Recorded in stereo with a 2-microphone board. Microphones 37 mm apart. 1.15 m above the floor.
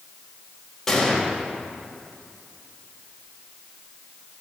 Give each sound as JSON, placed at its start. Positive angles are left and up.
{"t": 0.9, "sound": "a gunshot", "side_deg": 10, "distance_m": 1.3}